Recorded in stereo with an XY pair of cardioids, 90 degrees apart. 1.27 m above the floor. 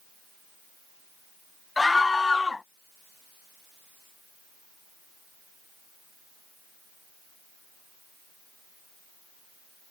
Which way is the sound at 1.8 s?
25° left.